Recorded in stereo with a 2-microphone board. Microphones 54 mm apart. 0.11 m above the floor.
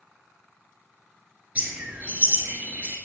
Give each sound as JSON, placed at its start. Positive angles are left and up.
{"t": 1.6, "sound": "a bird", "side_deg": -25, "distance_m": 3.0}